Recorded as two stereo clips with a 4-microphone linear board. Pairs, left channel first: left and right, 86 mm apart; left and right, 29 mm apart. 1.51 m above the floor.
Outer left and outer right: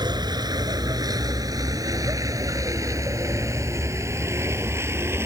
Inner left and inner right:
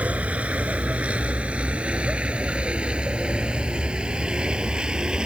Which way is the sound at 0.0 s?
55° right (ahead or behind).